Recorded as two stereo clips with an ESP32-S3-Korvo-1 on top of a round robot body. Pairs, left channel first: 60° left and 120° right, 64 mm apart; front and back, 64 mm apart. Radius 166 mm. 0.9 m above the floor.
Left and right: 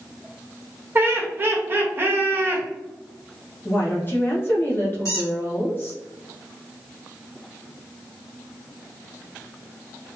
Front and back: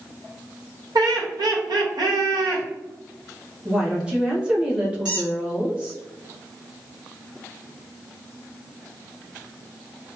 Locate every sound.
0.9 s laughter: 175° right, 1.0 m
3.6 s a woman speaking: 110° left, 1.4 m
5.0 s a squeak: 100° left, 1.3 m